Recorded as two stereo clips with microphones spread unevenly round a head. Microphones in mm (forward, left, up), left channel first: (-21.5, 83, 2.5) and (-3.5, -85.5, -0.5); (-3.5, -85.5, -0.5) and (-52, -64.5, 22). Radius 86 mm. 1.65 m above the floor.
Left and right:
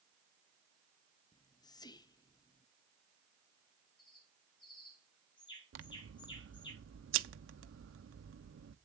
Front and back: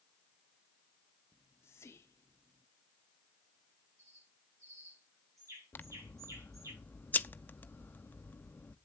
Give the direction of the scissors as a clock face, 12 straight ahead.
3 o'clock.